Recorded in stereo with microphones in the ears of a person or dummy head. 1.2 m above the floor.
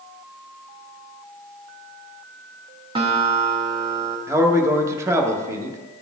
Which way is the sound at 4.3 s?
15° right (ahead or behind).